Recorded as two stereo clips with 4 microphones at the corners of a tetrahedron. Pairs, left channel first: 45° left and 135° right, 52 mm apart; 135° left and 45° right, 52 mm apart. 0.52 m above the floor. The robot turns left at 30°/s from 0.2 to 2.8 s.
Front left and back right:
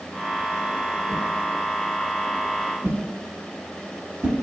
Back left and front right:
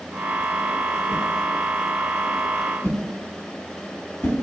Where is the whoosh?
140° right, 0.8 m; by 4.3 s 170° left, 0.8 m.